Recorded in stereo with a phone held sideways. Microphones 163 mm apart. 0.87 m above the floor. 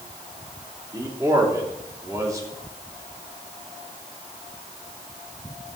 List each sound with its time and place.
0.9 s a man speaking: 20° right (ahead or behind), 2 m